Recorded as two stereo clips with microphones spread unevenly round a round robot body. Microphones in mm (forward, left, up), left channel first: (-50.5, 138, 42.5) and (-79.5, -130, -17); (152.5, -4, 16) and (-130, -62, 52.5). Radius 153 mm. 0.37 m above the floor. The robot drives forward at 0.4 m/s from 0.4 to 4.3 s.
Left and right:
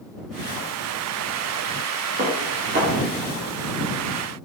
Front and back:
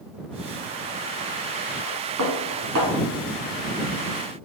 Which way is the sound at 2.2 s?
145° right.